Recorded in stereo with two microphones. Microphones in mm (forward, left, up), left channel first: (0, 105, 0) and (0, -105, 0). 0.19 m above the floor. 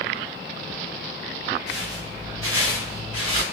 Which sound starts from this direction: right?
Footsteps, at 1.7 s.